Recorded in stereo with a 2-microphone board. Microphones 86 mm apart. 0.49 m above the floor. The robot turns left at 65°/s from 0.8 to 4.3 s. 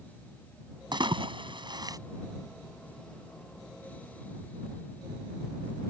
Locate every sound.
0.9 s a splash: 60° right (ahead or behind); by 2.0 s 45° right (ahead or behind)